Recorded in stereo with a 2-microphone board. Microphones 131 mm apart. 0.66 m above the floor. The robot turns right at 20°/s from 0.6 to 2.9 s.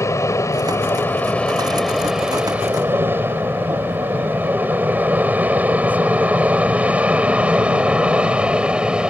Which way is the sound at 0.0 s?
25° left (ahead or behind).